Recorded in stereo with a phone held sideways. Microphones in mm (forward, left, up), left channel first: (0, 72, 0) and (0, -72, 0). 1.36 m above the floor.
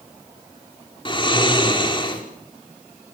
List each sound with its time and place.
1.1 s snoring: 35° left (ahead or behind), 5 m